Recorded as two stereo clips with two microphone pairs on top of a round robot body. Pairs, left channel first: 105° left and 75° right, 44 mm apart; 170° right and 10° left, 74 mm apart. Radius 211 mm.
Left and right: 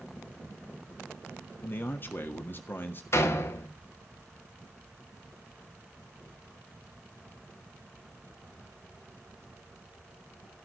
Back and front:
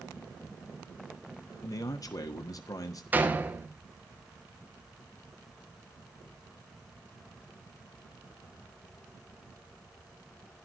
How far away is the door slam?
About 1.6 m.